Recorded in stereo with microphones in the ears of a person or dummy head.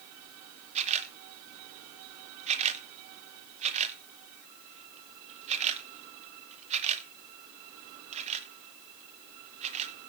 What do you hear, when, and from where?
0.8 s a camera shutter: 30° right (ahead or behind), 1.0 m